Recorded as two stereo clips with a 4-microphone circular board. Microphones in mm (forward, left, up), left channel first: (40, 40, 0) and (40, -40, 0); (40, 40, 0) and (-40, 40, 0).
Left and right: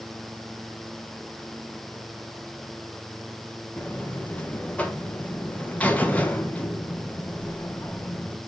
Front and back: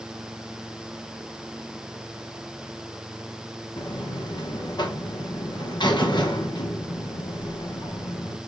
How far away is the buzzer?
About 1.1 m.